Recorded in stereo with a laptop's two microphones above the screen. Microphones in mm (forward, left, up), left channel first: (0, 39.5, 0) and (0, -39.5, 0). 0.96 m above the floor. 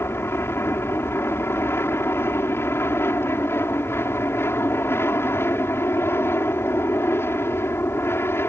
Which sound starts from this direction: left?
An aircraft, at 0.0 s.